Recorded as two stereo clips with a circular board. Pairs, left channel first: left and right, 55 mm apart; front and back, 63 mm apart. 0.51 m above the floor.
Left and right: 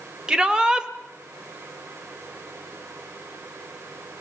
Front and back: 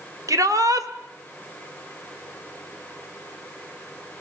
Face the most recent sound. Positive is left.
turn(degrees=-165)